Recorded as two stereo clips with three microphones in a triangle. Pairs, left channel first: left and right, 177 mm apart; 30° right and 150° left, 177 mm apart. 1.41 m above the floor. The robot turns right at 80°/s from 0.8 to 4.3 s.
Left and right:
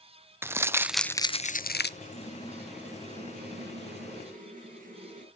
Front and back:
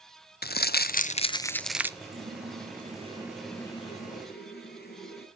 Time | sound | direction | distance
0.4 | crumpling | 15° right | 0.6 m
2.0 | a running tap | 125° left | 8 m